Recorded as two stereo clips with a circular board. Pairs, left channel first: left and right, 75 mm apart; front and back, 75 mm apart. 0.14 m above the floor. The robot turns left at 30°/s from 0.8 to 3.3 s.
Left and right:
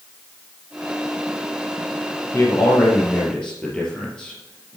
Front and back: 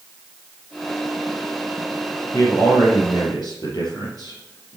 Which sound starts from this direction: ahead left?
A man speaking, at 2.3 s.